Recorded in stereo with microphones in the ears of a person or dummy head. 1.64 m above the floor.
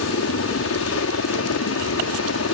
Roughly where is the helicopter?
Left.